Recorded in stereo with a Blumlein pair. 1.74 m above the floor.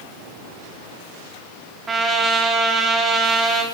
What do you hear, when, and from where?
1.9 s a trumpet: 15° right, 4.5 m